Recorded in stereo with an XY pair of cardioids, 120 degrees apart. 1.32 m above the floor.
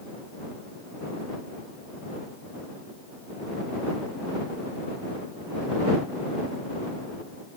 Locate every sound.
Only background noise.